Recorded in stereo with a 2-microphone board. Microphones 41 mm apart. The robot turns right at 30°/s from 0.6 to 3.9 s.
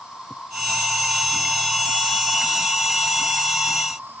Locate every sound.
0.0 s an insect: 165° right, 3 m; by 4.2 s 65° right, 3 m